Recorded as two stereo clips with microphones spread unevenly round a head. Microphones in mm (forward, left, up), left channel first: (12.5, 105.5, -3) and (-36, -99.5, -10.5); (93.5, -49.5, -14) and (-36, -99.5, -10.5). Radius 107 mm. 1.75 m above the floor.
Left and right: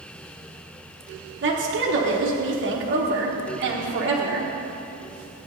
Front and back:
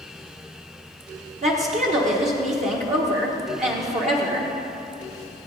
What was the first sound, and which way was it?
A woman speaking, 130° right.